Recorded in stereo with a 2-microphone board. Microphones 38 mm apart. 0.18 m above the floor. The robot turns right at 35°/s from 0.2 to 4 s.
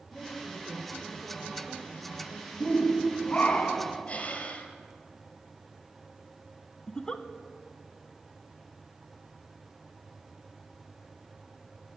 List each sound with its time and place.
0.1 s a woman speaking: 165° left, 3.5 m; by 3.6 s 75° right, 3.5 m
2.6 s a shout: 75° left, 1.2 m; by 4.0 s 125° left, 1.2 m
4.1 s breathing: 30° left (ahead or behind), 1.5 m
6.9 s a giggle: 20° left (ahead or behind), 0.5 m